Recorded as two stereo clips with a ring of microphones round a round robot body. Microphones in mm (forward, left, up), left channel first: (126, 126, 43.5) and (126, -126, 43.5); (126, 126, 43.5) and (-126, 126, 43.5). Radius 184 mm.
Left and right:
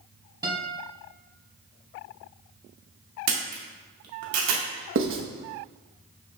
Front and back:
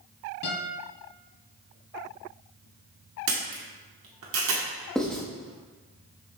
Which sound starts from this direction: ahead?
A guitar, at 0.4 s.